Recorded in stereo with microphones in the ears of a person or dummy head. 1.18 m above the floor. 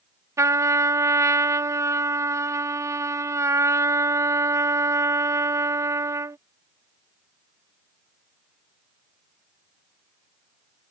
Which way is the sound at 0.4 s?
15° right (ahead or behind).